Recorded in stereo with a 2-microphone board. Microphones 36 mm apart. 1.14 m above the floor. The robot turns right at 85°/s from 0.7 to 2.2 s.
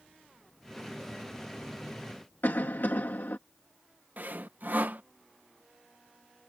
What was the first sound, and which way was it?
A cough, 75° left (ahead or behind).